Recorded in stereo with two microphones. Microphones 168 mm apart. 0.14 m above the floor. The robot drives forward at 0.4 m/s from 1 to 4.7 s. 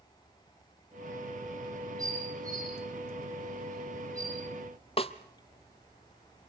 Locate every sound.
2.0 s dishes clattering: 20° right (ahead or behind), 6 m
5.0 s a snare drum: 35° left (ahead or behind), 0.9 m